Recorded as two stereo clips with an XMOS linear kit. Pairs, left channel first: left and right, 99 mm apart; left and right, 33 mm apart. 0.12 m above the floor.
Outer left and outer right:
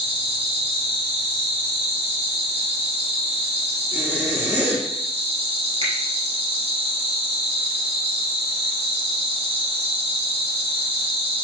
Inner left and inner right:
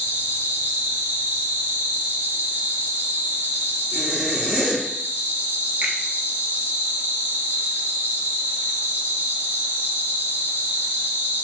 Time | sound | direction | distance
0.0 | an insect | 75° right (ahead or behind) | 1.1 m
3.9 | a zipper | 15° right (ahead or behind) | 1.7 m
5.8 | a finger snap | 60° right (ahead or behind) | 1.9 m